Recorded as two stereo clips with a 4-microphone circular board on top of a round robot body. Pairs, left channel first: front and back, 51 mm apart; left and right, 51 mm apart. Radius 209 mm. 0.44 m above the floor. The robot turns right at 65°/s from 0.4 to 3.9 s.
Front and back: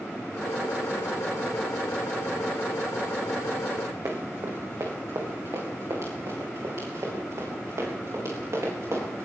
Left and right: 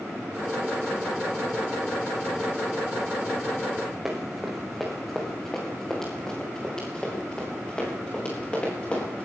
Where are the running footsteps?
170° right, 3 m; by 9.2 s 155° left, 7.5 m.